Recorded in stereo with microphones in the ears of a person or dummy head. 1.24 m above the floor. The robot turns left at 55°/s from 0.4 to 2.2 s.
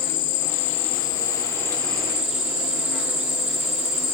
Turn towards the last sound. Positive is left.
turn(degrees=-5)